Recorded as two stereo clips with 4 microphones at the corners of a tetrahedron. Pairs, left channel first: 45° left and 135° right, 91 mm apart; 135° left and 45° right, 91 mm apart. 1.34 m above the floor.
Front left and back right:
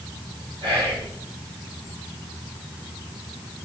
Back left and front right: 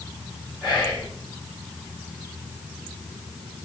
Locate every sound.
0.6 s whispering: 135° right, 1.2 m